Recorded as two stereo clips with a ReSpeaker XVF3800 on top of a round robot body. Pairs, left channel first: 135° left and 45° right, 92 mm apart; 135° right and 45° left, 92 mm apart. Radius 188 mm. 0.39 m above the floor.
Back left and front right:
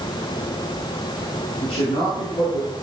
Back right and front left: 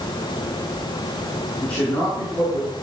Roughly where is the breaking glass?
No breaking glass in this recording.